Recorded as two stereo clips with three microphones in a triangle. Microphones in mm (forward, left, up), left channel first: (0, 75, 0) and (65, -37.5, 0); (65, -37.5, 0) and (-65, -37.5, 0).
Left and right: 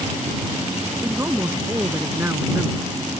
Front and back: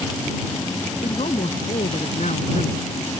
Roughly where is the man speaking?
Ahead.